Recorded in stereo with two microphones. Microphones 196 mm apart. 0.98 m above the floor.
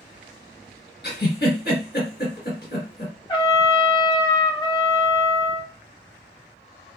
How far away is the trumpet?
About 1.7 m.